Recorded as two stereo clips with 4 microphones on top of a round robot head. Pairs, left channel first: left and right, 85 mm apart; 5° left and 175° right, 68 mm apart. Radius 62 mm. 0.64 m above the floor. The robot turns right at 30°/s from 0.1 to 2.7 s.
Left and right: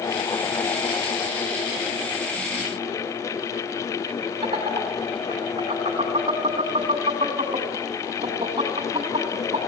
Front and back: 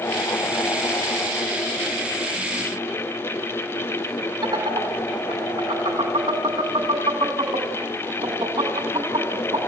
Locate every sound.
4.4 s laughter: 135° right, 5 m